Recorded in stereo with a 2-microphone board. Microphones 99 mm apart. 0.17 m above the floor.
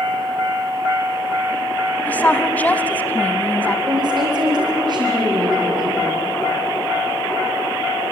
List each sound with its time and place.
2.1 s a woman speaking: 15° left (ahead or behind), 1.0 m
3.9 s a woman speaking: 45° right (ahead or behind), 7.5 m